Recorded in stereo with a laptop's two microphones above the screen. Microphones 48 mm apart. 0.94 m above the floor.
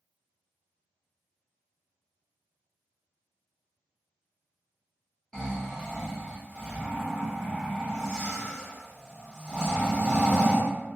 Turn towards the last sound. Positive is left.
turn(degrees=10)  # may be behind; listen again after turning